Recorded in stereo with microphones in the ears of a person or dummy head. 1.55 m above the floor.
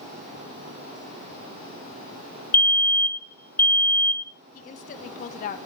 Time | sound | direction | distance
2.5 | a fire alarm | 10° left (ahead or behind) | 0.7 m
4.5 | a woman speaking | 45° left (ahead or behind) | 1.1 m